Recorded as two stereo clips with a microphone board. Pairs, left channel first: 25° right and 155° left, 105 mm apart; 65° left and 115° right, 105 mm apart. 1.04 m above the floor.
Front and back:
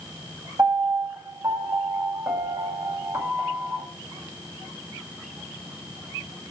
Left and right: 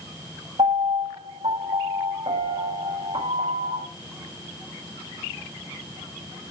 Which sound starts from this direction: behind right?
A piano, at 0.6 s.